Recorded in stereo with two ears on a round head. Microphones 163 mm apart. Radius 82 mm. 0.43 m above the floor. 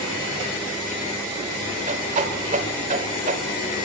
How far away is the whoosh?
About 1.2 m.